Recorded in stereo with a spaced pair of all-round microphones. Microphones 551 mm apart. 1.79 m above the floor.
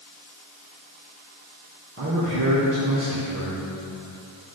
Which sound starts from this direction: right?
A man speaking, at 2.0 s.